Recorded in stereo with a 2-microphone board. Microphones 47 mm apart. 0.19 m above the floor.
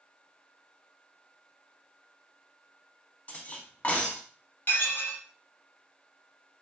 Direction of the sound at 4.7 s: 45° left (ahead or behind).